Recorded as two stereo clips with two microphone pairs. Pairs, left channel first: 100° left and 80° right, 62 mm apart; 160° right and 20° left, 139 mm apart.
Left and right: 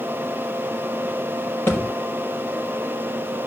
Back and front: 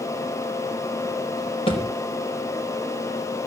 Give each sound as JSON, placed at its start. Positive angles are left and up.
{"t": 1.7, "sound": "a thud", "azimuth_deg": 150, "distance_m": 3.0}